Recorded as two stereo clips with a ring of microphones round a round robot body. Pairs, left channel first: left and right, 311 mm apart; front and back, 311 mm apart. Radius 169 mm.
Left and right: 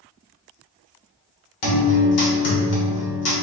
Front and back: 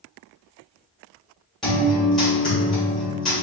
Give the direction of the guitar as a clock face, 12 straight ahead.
9 o'clock.